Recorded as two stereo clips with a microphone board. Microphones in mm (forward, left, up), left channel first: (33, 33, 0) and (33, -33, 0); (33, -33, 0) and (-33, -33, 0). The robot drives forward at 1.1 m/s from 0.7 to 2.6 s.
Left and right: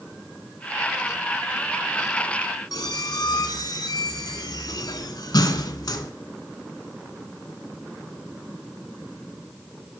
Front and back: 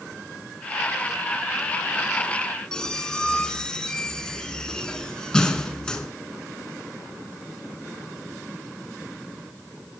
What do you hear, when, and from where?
2.7 s a squeak: 75° left, 0.5 m